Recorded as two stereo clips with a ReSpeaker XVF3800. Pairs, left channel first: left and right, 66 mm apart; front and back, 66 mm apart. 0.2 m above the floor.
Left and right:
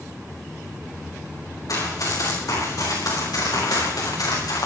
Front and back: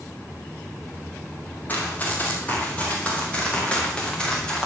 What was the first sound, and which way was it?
Running footsteps, 65° left.